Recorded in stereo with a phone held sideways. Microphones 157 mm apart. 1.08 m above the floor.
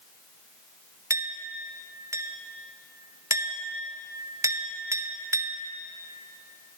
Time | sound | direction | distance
1.1 | a clink | 20° right (ahead or behind) | 0.9 m